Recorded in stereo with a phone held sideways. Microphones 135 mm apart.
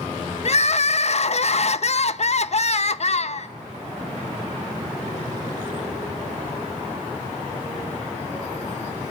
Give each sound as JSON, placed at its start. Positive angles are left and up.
{"t": 0.5, "sound": "crying", "side_deg": 55, "distance_m": 0.5}